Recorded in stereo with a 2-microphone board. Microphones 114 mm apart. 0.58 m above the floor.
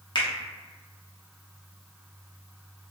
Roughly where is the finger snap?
Left.